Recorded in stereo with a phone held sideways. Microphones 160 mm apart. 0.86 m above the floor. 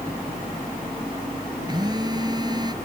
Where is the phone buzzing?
25° right (ahead or behind).